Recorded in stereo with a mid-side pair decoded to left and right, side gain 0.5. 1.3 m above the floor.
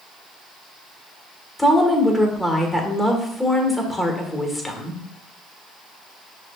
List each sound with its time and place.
1.6 s a woman speaking: 10° left, 1.2 m